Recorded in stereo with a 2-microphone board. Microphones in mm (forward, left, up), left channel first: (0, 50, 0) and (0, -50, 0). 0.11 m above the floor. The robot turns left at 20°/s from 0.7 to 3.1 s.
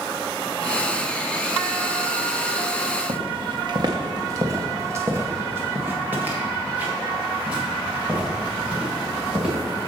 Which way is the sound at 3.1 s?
60° right (ahead or behind).